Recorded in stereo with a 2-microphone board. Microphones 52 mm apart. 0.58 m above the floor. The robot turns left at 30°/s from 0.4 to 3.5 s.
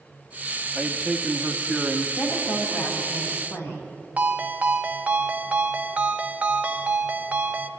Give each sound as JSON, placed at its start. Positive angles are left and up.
{"t": 0.8, "sound": "a man speaking", "side_deg": -10, "distance_m": 1.3}
{"t": 2.2, "sound": "a woman speaking", "azimuth_deg": 110, "distance_m": 4.5}
{"t": 4.2, "sound": "a ringtone", "side_deg": -30, "distance_m": 1.0}